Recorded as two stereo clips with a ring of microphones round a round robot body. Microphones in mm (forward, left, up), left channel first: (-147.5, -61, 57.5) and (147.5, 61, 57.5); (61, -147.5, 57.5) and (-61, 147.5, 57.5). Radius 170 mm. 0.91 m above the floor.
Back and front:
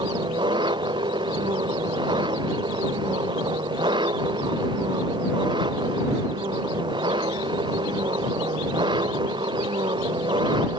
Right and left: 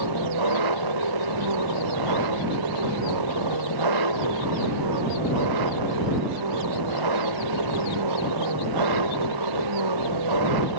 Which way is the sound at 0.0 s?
100° left.